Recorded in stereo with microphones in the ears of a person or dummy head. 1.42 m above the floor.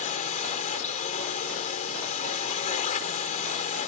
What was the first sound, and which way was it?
A drone, 40° left (ahead or behind).